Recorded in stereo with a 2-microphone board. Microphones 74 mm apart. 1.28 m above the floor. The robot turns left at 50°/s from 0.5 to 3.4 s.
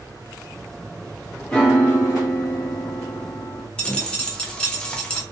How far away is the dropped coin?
About 0.6 m.